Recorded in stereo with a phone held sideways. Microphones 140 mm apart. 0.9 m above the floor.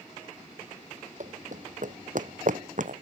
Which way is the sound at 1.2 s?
65° right (ahead or behind).